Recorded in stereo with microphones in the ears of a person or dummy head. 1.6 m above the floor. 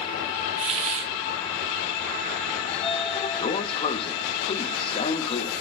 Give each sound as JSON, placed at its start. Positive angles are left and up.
{"t": 0.6, "sound": "a hiss", "side_deg": -30, "distance_m": 0.7}
{"t": 2.7, "sound": "a sliding door", "side_deg": 35, "distance_m": 0.7}